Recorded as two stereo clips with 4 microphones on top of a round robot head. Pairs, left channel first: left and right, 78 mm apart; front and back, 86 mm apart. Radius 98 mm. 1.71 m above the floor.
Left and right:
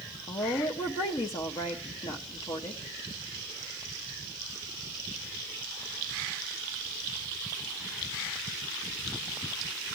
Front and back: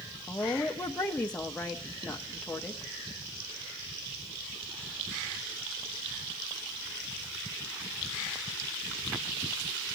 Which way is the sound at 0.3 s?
75° left.